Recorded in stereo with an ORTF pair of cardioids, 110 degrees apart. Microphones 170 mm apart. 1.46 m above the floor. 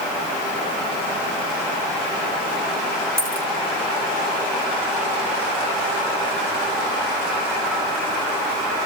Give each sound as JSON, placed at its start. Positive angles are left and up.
{"t": 3.2, "sound": "a dropped coin", "azimuth_deg": 10, "distance_m": 2.5}